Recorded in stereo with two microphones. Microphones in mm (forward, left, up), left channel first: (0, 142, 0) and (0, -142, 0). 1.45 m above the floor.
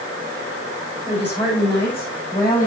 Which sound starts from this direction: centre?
A woman speaking, at 1.1 s.